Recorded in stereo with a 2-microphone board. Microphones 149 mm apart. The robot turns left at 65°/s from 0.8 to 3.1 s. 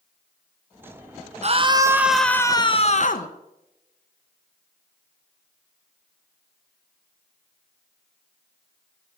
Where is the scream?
130° right, 0.8 m; by 3.3 s 120° left, 0.8 m.